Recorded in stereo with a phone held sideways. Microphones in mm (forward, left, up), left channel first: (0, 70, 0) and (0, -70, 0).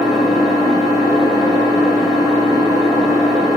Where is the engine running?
Centre (ahead or behind), 1.3 m.